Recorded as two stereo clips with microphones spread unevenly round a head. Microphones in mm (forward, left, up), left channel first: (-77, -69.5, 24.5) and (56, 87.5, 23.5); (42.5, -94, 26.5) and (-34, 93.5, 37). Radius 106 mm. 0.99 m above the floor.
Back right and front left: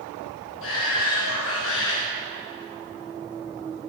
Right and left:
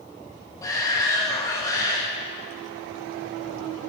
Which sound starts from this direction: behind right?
A shout, at 0.6 s.